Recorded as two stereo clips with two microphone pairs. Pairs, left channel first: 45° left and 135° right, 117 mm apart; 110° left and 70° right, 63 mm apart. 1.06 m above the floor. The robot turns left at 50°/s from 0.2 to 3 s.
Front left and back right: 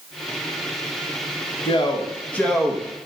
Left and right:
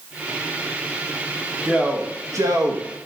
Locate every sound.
1.6 s a man speaking: 5° left, 1.2 m; by 2.9 s 55° right, 1.2 m